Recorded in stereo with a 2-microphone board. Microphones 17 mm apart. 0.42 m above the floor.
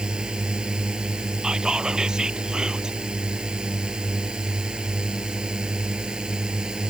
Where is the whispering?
55° right (ahead or behind).